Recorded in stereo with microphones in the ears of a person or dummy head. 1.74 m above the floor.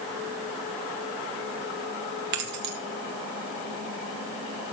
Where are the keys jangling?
55° right (ahead or behind), 1.1 m.